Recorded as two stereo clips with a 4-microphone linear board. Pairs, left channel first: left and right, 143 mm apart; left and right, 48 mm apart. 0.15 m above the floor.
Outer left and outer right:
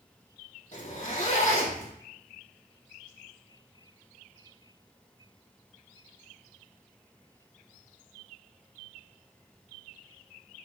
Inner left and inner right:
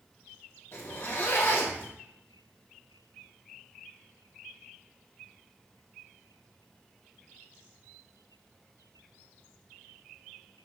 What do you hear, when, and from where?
0.7 s a zipper: 50° left (ahead or behind), 4.5 m